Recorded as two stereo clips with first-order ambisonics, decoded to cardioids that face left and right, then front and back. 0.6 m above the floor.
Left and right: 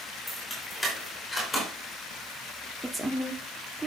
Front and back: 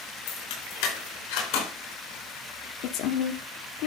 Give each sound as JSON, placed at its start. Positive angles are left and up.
{"t": 0.3, "sound": "keys jangling", "azimuth_deg": 0, "distance_m": 4.5}
{"t": 2.8, "sound": "a woman speaking", "azimuth_deg": -10, "distance_m": 1.3}